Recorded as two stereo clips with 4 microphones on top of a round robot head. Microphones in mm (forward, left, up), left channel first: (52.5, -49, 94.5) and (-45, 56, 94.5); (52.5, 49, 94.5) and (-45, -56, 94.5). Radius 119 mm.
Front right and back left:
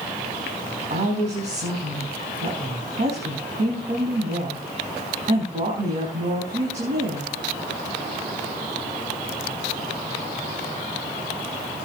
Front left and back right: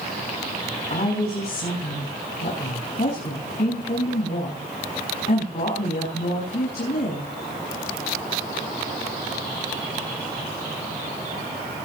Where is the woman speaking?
90° left, 5 m.